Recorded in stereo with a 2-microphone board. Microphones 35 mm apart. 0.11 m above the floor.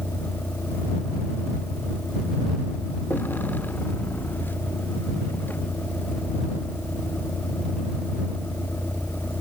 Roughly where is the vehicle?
Left.